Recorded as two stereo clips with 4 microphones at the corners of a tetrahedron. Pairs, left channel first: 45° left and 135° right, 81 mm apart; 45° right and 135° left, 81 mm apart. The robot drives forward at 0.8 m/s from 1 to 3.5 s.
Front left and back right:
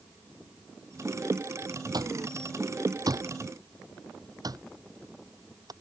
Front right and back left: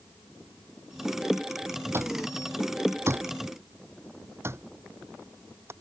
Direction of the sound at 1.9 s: 170° right.